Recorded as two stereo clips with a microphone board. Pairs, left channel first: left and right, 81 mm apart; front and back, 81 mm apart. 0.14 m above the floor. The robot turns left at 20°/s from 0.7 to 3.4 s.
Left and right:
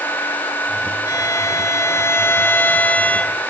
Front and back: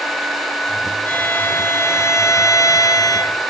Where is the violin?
65° left, 0.8 m; by 3.4 s 15° left, 0.8 m.